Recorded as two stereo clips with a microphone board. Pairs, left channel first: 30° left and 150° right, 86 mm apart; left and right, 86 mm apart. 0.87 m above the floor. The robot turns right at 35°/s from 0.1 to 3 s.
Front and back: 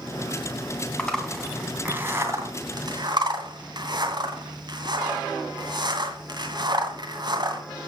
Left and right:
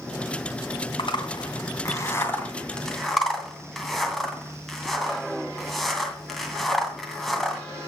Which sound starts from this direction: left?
A zipper, at 1.0 s.